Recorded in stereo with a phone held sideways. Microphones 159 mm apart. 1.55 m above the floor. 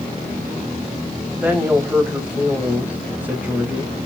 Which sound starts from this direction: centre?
A woman speaking, at 1.3 s.